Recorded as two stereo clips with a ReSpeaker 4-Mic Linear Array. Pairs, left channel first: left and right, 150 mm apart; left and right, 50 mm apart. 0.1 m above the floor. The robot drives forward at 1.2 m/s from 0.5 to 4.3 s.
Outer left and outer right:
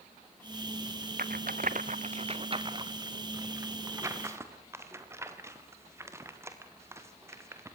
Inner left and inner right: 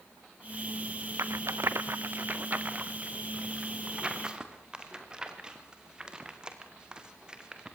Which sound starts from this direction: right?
A rattle, at 1.2 s.